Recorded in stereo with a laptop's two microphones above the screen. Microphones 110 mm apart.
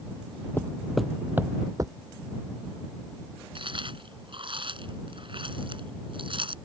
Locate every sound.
0.6 s footsteps: 20° left (ahead or behind); by 1.9 s 40° right (ahead or behind)
3.5 s chewing: 55° right (ahead or behind)